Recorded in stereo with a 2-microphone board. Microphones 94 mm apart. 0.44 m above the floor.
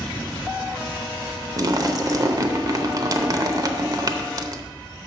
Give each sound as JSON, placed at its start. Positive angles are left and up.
{"t": 1.6, "sound": "a splash", "side_deg": -40, "distance_m": 0.7}